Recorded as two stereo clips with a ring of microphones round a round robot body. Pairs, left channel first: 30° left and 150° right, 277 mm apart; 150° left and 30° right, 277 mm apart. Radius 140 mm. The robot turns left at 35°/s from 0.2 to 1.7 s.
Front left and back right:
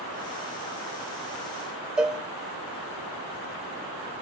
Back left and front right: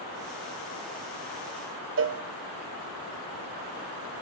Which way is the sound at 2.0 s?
65° right.